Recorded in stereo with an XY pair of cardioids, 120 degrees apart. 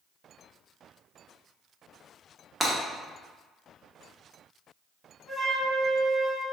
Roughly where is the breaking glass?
Ahead.